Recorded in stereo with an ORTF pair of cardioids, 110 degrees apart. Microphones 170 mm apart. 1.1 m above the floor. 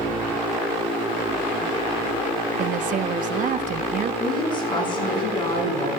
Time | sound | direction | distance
2.6 | a woman speaking | 55° right | 1.0 m
4.2 | a woman speaking | 30° left | 6 m